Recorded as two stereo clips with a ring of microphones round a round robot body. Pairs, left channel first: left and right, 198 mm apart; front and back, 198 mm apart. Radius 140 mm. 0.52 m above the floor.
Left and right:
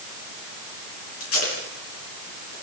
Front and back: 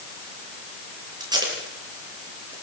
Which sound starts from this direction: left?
Tape being pulled, at 1.2 s.